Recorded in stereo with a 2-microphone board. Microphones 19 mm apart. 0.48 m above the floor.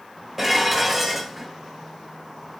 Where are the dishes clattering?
15° right (ahead or behind), 1.1 m.